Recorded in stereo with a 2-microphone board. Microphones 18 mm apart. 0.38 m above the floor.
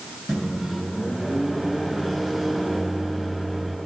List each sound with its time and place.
0.3 s a microwave: 10° right (ahead or behind), 3.5 m